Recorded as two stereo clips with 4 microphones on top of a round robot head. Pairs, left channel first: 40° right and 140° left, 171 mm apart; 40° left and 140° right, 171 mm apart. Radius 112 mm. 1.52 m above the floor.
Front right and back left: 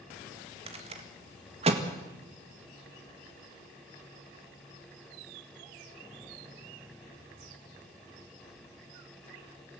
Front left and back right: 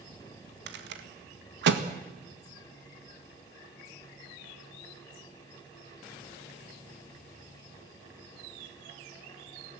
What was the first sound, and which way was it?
A rattle, 165° right.